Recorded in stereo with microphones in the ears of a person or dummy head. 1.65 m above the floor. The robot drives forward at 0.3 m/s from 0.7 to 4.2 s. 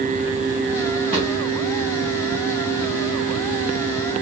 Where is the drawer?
30° right (ahead or behind), 3.5 m.